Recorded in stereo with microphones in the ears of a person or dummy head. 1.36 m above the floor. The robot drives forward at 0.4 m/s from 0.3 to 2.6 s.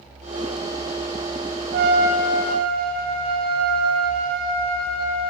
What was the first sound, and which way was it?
A trumpet, 55° right (ahead or behind).